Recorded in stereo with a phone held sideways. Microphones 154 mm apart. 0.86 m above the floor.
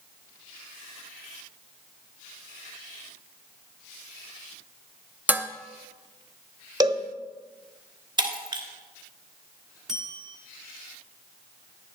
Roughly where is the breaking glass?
Right.